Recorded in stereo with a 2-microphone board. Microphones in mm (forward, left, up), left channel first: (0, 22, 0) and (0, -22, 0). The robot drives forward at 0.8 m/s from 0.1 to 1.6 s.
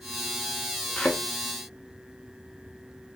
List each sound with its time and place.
1.0 s a thud: 30° left (ahead or behind), 0.7 m; by 1.2 s 25° left (ahead or behind), 0.8 m